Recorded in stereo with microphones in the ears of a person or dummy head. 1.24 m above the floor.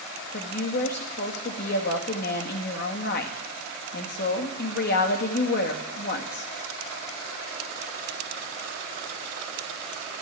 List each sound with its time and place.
0.3 s a woman speaking: 55° left (ahead or behind), 2 m